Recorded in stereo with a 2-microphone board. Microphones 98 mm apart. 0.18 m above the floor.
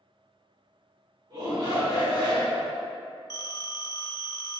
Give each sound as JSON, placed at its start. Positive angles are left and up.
{"t": 1.3, "sound": "a shout", "side_deg": -40, "distance_m": 1.9}
{"t": 3.3, "sound": "a phone ringing", "side_deg": 40, "distance_m": 0.7}